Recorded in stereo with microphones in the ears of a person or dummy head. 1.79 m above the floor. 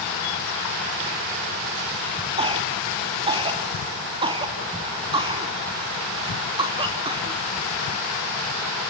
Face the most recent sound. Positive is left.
turn(degrees=-25)  # may be behind; listen again after turning